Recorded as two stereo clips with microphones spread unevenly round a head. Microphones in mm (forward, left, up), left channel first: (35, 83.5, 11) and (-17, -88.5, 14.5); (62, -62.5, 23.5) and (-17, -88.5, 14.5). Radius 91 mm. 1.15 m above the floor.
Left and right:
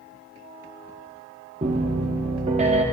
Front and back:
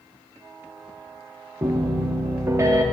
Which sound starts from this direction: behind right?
A piano, at 1.6 s.